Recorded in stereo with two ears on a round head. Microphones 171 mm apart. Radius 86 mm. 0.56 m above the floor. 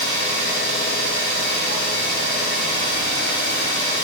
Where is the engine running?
40° right (ahead or behind), 2.5 m.